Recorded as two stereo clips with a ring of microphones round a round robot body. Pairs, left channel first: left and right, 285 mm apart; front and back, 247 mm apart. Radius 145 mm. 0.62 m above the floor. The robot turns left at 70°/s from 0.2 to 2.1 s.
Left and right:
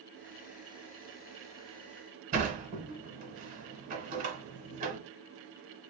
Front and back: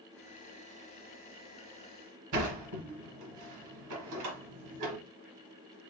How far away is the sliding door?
About 0.9 m.